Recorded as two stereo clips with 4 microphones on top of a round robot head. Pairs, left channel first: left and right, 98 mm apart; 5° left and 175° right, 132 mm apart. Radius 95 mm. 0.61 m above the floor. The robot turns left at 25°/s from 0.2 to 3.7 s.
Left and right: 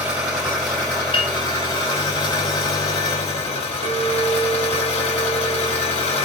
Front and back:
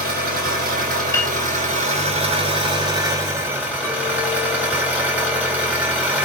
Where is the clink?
70° right, 1.9 m.